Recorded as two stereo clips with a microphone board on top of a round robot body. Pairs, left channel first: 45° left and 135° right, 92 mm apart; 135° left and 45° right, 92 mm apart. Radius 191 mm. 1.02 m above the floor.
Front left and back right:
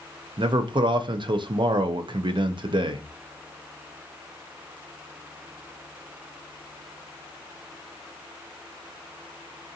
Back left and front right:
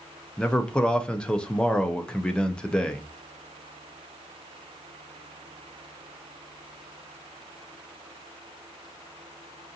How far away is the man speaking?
About 0.5 m.